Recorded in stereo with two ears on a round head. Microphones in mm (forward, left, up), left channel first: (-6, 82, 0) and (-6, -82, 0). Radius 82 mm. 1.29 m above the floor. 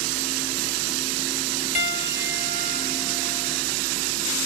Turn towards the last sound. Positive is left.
turn(degrees=40)  # may be behind; listen again after turning